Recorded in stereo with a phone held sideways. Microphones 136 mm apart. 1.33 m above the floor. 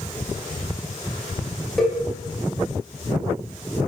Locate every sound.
1.8 s a cowbell: centre (ahead or behind), 0.6 m